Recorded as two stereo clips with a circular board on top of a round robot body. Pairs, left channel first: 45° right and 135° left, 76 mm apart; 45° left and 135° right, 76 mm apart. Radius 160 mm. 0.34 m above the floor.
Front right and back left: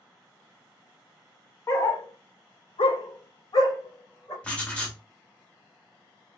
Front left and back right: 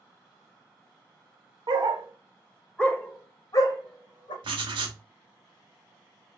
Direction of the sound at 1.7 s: 105° right.